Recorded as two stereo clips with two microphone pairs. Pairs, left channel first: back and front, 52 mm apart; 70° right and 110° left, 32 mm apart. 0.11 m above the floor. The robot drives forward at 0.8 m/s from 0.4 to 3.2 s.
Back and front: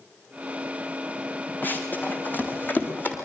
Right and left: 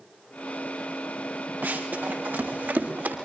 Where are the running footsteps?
125° left, 6.5 m.